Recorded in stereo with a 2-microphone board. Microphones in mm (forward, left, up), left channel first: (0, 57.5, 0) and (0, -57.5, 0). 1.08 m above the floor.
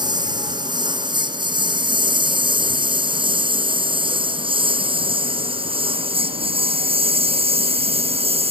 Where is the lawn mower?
40° right (ahead or behind); by 8.5 s 60° right (ahead or behind).